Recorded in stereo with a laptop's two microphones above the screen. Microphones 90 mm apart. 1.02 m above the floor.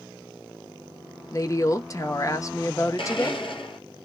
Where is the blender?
65° left (ahead or behind), 0.7 m.